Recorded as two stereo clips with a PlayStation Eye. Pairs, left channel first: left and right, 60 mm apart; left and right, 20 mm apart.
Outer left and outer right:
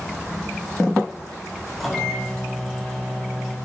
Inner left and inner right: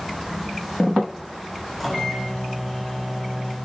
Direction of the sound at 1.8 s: 5° left (ahead or behind).